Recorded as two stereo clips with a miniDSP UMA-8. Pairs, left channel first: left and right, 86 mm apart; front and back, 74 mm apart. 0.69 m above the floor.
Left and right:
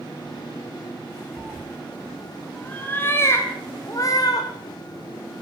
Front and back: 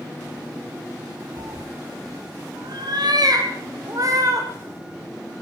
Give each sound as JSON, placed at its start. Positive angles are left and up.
{"t": 1.4, "sound": "a cat meowing", "azimuth_deg": -165, "distance_m": 3.5}